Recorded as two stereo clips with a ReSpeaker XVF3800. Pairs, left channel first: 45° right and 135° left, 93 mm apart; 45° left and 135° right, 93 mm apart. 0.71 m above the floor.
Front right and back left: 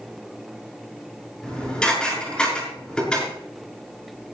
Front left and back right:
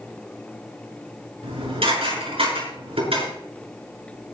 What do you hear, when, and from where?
1.4 s dishes clattering: 125° right, 6.5 m